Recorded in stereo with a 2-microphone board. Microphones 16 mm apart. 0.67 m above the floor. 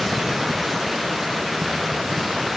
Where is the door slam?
No door slam in this recording.